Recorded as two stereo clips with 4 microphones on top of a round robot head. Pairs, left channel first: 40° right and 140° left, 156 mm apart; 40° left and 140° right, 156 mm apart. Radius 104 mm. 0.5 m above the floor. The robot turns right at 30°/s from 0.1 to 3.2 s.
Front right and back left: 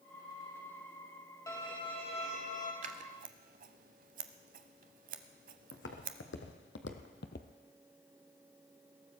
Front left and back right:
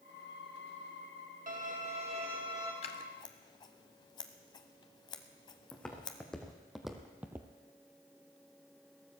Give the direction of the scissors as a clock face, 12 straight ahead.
9 o'clock.